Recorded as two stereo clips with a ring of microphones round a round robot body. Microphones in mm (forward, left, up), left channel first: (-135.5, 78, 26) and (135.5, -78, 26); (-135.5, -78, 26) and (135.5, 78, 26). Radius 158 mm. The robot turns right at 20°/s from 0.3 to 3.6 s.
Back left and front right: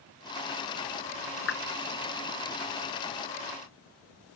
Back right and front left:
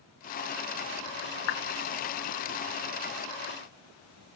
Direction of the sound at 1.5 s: 155° right.